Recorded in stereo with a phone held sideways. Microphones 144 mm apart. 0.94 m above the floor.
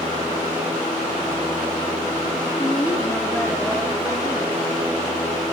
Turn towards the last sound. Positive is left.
turn(degrees=-20)  # may be behind; listen again after turning